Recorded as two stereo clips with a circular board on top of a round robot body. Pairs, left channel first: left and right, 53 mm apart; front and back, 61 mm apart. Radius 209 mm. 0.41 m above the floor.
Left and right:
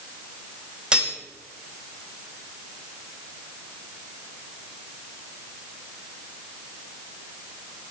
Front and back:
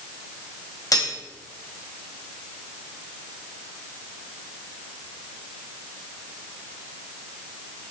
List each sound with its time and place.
0.9 s cutlery clinking: 15° right, 2 m